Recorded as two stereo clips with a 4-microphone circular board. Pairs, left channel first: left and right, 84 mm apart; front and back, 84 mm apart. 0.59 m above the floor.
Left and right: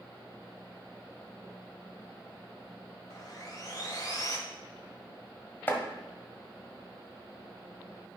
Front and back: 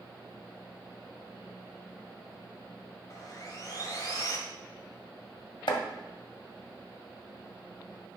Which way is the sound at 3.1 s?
45° left.